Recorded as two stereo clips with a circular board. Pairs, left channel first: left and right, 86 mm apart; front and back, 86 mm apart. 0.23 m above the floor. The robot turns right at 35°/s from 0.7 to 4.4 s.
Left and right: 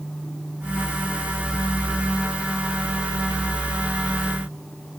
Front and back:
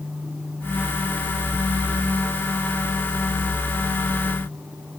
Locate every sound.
Only background noise.